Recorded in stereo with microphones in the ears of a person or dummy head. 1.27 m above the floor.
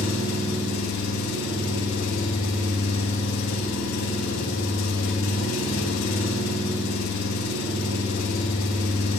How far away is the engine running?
About 1.7 m.